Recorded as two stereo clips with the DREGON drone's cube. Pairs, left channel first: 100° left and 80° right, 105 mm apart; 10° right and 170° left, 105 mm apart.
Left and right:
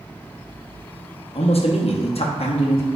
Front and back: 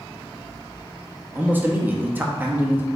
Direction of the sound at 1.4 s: 100° left.